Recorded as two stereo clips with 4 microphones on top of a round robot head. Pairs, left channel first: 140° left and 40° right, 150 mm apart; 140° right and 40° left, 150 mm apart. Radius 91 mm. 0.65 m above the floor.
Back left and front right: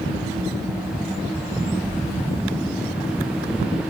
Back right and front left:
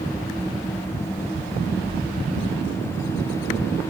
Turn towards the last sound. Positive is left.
turn(degrees=175)